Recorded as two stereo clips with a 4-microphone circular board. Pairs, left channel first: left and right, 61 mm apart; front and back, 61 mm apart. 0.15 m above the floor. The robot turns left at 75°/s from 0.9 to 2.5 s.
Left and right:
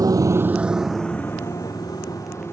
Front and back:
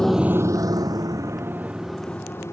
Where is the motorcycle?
80° right; by 2.5 s 45° left.